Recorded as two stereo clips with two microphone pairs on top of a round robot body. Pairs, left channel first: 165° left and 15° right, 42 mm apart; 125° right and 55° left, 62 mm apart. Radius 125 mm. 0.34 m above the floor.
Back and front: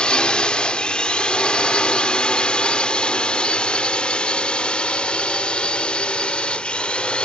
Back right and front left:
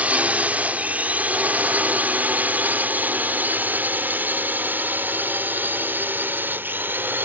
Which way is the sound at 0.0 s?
105° left.